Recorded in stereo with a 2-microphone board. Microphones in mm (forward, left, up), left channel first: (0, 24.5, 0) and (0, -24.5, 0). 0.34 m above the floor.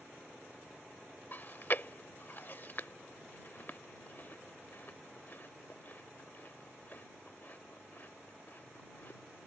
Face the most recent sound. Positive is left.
turn(degrees=40)  # may be behind; listen again after turning